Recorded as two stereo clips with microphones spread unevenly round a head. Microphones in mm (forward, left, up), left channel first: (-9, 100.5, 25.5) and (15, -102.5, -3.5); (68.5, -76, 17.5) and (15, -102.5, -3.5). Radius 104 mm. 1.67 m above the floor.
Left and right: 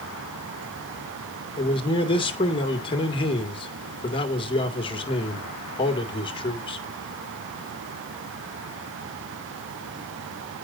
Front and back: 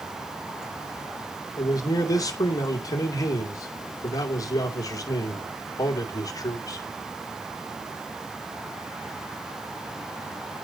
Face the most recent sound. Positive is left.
turn(degrees=30)